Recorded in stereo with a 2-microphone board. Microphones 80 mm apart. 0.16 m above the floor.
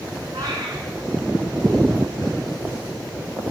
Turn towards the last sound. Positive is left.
turn(degrees=-40)  # may be behind; listen again after turning